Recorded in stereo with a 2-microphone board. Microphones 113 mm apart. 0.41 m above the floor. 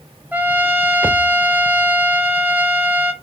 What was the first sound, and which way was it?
A trumpet, 15° right (ahead or behind).